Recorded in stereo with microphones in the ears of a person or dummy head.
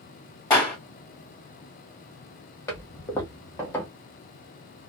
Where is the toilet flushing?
15° left (ahead or behind), 0.9 m.